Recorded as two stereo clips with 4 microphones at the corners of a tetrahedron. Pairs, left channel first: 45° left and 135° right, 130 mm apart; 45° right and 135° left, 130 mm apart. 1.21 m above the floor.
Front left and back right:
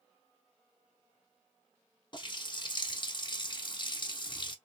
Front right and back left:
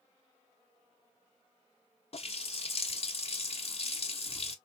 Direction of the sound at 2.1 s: 5° right.